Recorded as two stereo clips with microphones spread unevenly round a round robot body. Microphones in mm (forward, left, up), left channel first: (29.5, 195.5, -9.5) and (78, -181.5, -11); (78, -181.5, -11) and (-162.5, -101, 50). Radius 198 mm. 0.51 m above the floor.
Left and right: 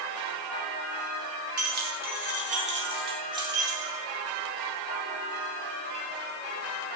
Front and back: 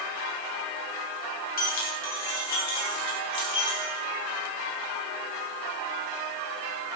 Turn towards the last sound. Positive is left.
turn(degrees=0)